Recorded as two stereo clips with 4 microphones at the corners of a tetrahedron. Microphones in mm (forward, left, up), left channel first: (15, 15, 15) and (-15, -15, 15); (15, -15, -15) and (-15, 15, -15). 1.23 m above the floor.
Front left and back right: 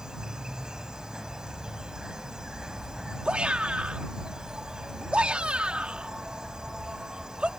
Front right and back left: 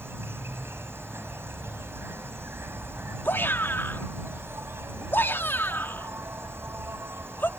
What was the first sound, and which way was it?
An insect, 150° left.